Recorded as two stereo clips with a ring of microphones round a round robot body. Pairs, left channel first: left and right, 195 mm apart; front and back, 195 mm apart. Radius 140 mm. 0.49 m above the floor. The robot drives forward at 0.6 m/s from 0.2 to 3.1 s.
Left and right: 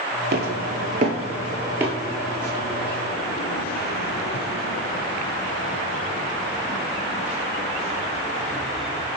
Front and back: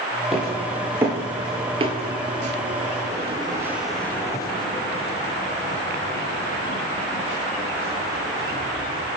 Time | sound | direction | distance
0.3 | footsteps | 90° right | 0.6 m